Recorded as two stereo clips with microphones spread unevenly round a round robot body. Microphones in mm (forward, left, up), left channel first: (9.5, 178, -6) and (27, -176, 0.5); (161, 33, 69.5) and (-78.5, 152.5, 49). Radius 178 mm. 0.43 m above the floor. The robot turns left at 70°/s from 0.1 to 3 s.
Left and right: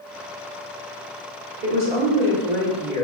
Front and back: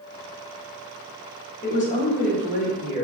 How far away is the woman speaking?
About 1.2 m.